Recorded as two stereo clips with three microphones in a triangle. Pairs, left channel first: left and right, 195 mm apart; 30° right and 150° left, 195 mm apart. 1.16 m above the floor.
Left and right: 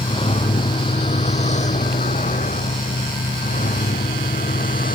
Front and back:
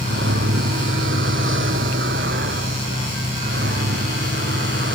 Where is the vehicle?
150° left; by 5.0 s 135° left.